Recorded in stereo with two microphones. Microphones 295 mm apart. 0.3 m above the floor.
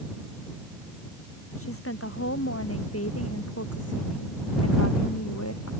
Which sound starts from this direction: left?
A woman speaking, at 1.6 s.